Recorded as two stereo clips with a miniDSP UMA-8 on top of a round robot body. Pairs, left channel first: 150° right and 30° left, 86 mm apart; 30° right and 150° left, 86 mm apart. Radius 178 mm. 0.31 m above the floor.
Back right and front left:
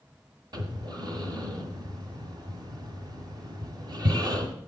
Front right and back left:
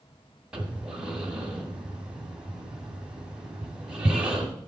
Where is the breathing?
70° left, 1.8 m.